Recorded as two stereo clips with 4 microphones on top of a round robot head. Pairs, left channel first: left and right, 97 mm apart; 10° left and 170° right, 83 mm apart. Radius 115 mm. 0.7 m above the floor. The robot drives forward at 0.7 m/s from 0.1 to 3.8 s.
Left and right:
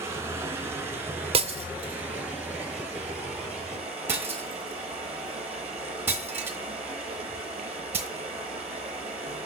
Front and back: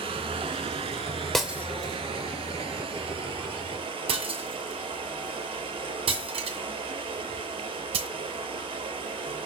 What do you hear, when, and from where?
0.0 s running water: 155° right, 2.5 m; by 9.5 s 170° right, 5 m
1.3 s breaking glass: 80° right, 0.6 m; by 8.1 s 165° right, 1.7 m